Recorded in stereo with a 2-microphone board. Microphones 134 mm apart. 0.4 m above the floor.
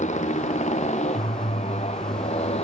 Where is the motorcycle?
60° left (ahead or behind); by 2.6 s 50° left (ahead or behind).